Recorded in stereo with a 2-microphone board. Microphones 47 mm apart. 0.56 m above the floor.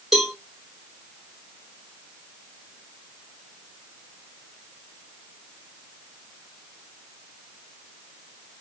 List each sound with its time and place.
0.1 s a cowbell: 5° right (ahead or behind), 1.3 m